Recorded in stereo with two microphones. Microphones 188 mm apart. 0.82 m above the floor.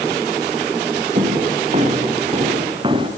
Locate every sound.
1.1 s footsteps: 40° right (ahead or behind), 4 m; by 3.1 s 25° right (ahead or behind), 4.5 m